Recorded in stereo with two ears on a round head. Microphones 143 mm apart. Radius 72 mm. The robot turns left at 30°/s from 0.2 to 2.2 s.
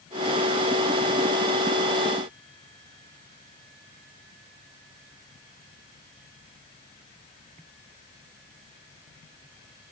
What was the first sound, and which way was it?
Only background noise.